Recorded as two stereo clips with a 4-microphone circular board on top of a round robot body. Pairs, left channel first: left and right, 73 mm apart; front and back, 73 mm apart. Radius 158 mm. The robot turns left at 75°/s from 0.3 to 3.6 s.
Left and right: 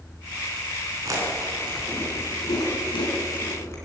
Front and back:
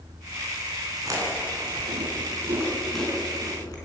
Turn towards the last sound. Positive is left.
turn(degrees=35)